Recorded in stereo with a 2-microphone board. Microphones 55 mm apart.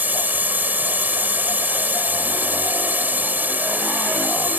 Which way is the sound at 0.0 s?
35° right (ahead or behind).